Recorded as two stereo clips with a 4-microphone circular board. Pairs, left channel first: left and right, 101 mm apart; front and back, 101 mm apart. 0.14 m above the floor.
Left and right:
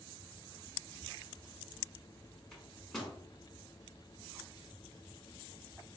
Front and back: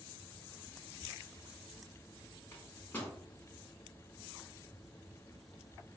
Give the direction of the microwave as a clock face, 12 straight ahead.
12 o'clock.